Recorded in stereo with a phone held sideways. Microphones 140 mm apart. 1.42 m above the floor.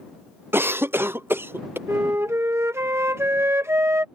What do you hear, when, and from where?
0.5 s a cough: 15° right (ahead or behind)
1.9 s a flute: 20° right (ahead or behind)